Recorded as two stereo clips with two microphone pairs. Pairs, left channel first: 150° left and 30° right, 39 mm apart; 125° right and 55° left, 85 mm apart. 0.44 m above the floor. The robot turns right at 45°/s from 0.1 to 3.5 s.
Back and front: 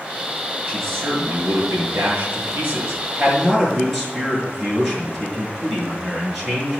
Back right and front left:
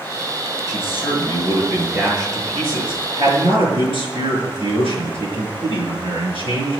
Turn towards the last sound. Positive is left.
turn(degrees=55)